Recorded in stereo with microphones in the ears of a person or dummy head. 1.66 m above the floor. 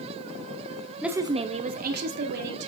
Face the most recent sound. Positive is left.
turn(degrees=-60)  # may be behind; listen again after turning